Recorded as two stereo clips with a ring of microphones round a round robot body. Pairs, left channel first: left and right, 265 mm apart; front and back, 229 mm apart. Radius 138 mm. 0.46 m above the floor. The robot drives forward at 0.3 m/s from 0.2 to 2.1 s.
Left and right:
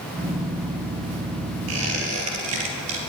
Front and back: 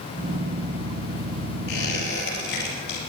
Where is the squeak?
55° right, 4 m.